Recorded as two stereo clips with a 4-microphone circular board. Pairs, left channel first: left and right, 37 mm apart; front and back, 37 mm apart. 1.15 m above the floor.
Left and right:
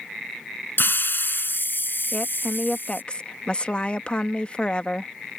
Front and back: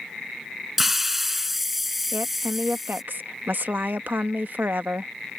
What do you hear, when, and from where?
0.8 s a hiss: 95° left
2.1 s a woman speaking: 150° left